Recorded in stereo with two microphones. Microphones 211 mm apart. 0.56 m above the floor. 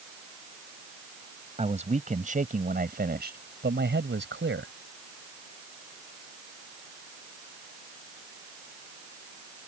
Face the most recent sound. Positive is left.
turn(degrees=-65)  # may be behind; listen again after turning